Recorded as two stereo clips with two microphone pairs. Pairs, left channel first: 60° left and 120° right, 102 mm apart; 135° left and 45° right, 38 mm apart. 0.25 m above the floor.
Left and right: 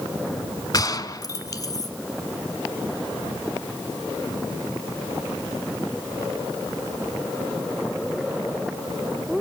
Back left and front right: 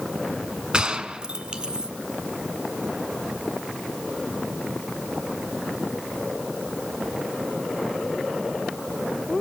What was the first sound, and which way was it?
A gunshot, 15° left.